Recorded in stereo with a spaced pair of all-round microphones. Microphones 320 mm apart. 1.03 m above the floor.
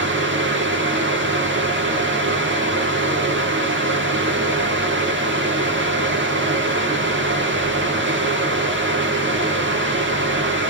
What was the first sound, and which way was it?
A fan, 35° right (ahead or behind).